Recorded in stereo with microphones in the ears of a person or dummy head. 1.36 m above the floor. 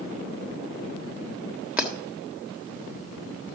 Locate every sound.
1.8 s breaking glass: 5° right (ahead or behind), 1.6 m